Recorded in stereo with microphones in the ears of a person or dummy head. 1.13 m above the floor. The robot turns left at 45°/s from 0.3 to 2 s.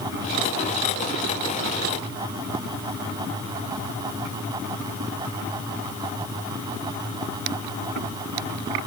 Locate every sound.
Only background noise.